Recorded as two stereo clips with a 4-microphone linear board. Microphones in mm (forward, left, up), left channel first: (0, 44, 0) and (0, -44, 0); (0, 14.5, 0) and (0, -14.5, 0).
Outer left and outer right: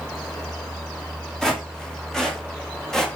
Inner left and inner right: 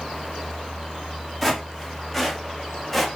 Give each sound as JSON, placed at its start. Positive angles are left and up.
{"t": 1.4, "sound": "footsteps", "side_deg": 5, "distance_m": 6.5}